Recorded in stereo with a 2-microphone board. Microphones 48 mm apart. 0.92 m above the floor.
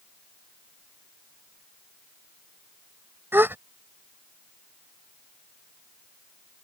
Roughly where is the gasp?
Right.